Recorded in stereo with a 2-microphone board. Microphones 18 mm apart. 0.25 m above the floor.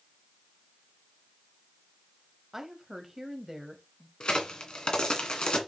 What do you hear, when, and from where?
2.5 s a woman speaking: 15° right (ahead or behind), 1.1 m
4.2 s a crack: 65° left (ahead or behind), 2 m